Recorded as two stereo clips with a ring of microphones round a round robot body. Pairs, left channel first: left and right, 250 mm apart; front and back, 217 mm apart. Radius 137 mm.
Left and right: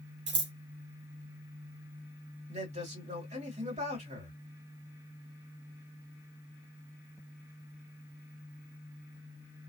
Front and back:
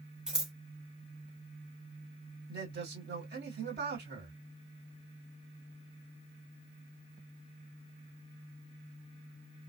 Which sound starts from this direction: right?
Scissors, at 0.3 s.